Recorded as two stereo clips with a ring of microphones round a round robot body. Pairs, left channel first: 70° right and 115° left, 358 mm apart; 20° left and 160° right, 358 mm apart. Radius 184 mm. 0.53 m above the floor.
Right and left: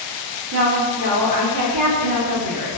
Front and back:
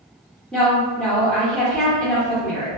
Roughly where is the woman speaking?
Left.